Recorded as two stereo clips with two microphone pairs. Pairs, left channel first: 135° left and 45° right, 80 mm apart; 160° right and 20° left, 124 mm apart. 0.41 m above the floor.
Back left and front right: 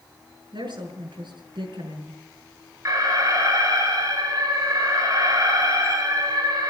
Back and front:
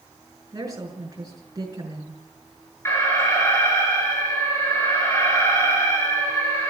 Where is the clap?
No clap in this recording.